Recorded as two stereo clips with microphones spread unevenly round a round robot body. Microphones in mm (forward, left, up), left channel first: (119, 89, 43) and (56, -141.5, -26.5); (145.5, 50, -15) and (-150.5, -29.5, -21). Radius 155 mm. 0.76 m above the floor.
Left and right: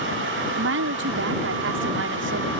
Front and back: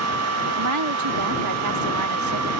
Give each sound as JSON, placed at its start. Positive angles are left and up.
{"t": 0.6, "sound": "a woman speaking", "azimuth_deg": -135}